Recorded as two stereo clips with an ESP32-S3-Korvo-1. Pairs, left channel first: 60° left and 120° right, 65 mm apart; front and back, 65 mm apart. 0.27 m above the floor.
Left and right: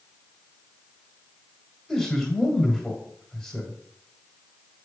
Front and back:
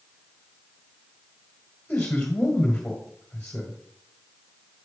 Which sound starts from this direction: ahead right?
A man speaking, at 1.9 s.